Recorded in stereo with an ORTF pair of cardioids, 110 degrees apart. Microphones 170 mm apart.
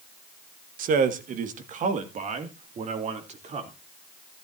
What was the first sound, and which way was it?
A man speaking, 60° right.